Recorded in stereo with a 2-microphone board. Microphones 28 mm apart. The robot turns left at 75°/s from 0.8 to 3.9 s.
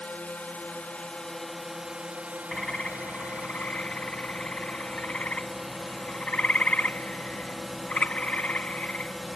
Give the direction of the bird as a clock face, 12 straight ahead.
6 o'clock.